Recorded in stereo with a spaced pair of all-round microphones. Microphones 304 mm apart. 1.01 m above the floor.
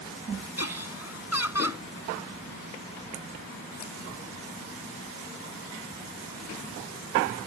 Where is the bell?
No bell in this recording.